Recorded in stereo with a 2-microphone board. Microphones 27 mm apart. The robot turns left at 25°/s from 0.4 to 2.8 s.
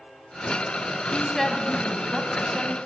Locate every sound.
1.1 s a woman speaking: 15° left, 3 m; by 2.8 s 25° right, 3 m